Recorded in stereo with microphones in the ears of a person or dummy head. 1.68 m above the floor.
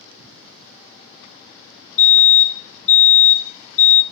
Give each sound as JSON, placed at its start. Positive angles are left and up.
{"t": 2.0, "sound": "a fire alarm", "side_deg": 70, "distance_m": 2.5}